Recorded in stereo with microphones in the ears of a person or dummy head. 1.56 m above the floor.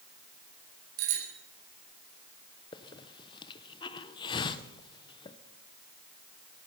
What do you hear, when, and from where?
1.0 s a bicycle bell: 80° right, 6 m
2.7 s a hiss: 30° left (ahead or behind), 0.8 m